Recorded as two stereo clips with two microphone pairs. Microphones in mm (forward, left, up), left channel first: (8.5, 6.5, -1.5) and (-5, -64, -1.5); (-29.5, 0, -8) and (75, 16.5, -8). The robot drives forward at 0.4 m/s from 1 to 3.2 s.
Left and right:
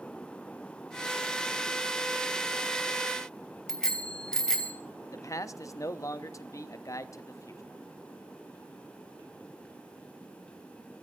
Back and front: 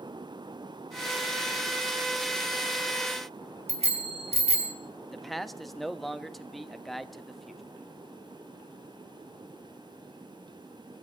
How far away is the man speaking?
About 0.6 m.